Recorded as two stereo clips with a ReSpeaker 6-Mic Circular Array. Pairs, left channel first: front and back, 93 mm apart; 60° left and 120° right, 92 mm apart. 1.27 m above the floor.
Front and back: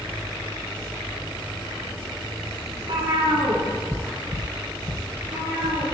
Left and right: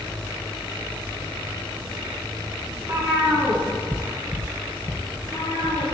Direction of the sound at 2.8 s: 175° right.